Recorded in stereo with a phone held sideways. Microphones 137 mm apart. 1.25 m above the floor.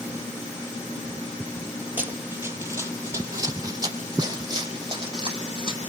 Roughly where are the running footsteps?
Centre.